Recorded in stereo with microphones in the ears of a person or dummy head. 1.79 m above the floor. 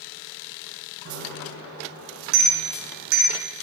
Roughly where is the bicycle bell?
Right.